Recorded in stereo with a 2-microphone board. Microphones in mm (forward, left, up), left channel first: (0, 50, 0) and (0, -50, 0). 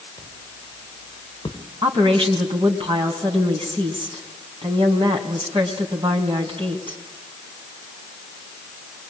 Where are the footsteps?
40° left (ahead or behind), 5.5 m; by 1.6 s 45° left (ahead or behind), 4 m.